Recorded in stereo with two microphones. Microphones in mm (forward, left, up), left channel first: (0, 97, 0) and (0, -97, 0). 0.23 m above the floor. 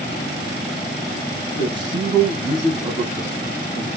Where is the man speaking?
25° right (ahead or behind), 1.0 m; by 3.9 s 15° right (ahead or behind), 2 m.